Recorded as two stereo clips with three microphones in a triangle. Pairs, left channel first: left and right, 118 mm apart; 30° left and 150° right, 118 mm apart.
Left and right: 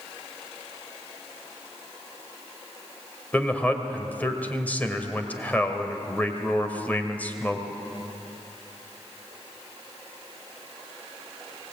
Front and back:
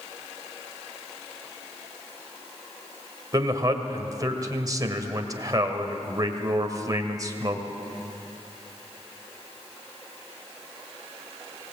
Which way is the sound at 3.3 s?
160° left.